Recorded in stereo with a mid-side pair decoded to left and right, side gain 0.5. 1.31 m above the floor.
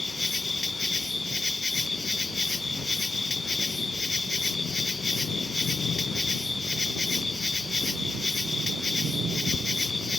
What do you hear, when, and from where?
0.0 s an insect: 20° left